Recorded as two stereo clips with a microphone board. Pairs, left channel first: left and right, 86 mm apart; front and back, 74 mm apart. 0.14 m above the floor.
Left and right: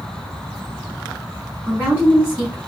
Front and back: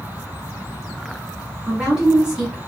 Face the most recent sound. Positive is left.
turn(degrees=-125)